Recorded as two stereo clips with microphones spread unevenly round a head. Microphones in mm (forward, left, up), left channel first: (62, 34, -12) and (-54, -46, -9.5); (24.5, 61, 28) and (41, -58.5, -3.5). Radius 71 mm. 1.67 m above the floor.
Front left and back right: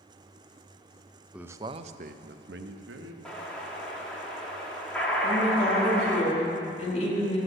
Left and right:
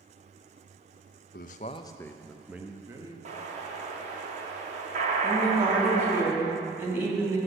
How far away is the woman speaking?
About 4 m.